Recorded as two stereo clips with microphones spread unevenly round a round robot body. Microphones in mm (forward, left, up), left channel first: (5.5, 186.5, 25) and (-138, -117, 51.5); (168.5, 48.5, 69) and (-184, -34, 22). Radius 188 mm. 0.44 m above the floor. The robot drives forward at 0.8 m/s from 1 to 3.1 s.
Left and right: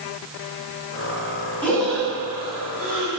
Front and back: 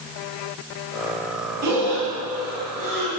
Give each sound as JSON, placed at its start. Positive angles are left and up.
{"t": 1.6, "sound": "breathing", "azimuth_deg": 150, "distance_m": 2.5}